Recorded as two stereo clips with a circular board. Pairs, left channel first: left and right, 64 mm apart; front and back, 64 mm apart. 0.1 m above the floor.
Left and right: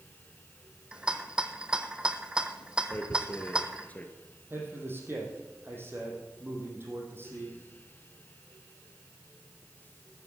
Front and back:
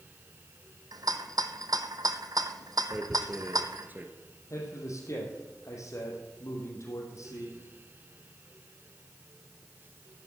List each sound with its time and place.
0.9 s a rattle: 165° right, 0.8 m
2.9 s tearing paper: 140° left, 1.4 m
4.5 s a man speaking: 35° right, 3.5 m